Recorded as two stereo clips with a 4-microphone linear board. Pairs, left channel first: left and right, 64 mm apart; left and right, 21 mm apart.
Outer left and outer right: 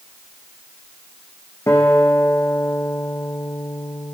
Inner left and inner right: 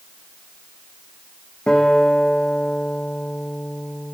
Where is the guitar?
45° left (ahead or behind), 2.5 m.